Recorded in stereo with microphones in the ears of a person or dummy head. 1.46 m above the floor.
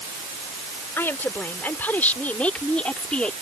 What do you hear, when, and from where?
1.0 s a woman speaking: 5° left (ahead or behind); by 3.3 s centre (ahead or behind)